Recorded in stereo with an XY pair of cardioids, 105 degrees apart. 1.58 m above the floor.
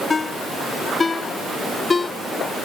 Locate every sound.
0.1 s a ringtone: 30° left